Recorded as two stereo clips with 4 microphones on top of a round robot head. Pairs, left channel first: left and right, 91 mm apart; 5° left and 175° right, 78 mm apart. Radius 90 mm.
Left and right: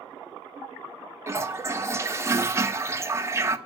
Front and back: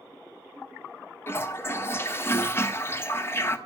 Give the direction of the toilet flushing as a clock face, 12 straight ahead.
1 o'clock.